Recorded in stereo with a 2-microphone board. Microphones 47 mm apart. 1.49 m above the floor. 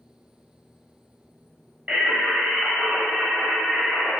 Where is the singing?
25° right (ahead or behind), 1.1 m.